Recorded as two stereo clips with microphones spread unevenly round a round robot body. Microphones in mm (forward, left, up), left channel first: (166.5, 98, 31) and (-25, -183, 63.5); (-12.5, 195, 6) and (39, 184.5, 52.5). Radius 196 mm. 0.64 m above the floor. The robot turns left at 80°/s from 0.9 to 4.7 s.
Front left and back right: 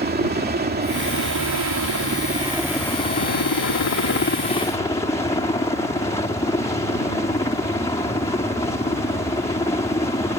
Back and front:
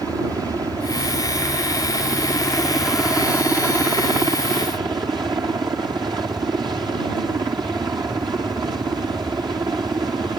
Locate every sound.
0.0 s a helicopter: 70° right; by 10.4 s 15° right